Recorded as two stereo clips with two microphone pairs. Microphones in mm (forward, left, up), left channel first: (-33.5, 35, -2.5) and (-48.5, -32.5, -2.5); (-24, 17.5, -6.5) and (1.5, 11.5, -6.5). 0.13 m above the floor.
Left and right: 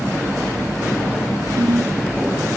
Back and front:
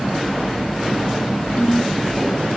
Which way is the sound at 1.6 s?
125° right.